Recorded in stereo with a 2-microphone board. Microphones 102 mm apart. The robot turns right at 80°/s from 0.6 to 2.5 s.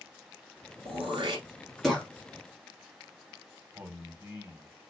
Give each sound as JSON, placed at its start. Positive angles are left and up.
{"t": 0.8, "sound": "throat clearing", "side_deg": -75, "distance_m": 1.4}
{"t": 3.8, "sound": "a man speaking", "side_deg": -20, "distance_m": 1.0}